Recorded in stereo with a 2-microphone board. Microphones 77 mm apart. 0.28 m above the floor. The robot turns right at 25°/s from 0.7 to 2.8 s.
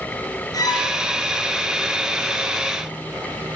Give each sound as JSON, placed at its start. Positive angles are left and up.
{"t": 0.5, "sound": "a violin", "side_deg": 50, "distance_m": 4.5}